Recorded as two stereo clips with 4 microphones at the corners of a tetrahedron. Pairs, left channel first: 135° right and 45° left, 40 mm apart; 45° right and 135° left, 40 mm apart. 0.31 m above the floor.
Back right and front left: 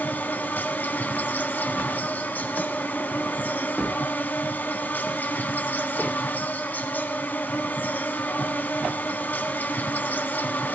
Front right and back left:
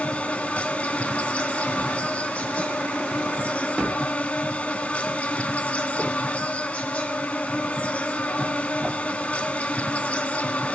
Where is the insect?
100° right, 1.0 m.